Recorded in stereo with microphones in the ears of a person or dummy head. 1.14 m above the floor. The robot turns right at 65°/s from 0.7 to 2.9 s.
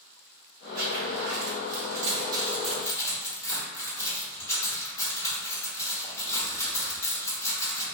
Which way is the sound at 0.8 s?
50° right (ahead or behind).